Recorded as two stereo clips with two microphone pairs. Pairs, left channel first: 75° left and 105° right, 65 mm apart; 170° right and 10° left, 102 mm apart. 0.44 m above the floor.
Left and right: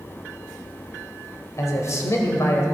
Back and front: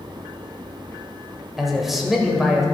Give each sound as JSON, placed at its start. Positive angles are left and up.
{"t": 1.6, "sound": "a man speaking", "azimuth_deg": 100, "distance_m": 1.7}